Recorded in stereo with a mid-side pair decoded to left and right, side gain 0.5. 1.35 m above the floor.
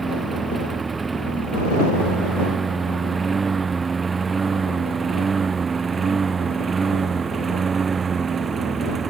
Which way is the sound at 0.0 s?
25° right.